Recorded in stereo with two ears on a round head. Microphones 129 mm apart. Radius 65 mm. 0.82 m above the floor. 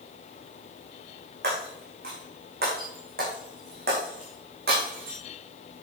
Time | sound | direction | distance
1.4 | breaking glass | 80° right | 5.5 m